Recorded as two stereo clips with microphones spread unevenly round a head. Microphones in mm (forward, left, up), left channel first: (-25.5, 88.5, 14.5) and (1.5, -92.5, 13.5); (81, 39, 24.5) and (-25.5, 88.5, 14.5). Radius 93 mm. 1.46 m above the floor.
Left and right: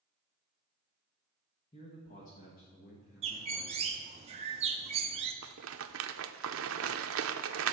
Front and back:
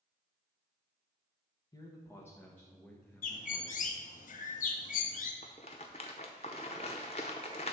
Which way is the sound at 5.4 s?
75° right.